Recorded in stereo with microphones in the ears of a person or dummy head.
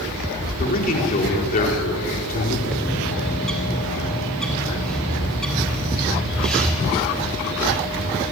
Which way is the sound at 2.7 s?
5° left (ahead or behind).